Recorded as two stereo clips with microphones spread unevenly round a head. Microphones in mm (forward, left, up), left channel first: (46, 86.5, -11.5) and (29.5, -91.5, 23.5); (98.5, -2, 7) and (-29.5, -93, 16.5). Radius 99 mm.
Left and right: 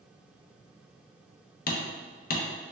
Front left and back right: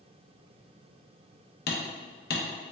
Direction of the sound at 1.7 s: 45° left.